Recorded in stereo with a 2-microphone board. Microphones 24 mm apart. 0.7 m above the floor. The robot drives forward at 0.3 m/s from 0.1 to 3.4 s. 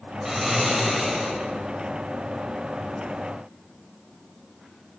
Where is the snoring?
20° right (ahead or behind), 1.7 m; by 1.4 s 15° right (ahead or behind), 2 m.